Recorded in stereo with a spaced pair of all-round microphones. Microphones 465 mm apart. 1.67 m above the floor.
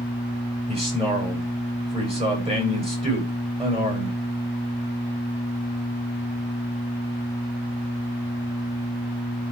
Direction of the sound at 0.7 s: 10° right (ahead or behind).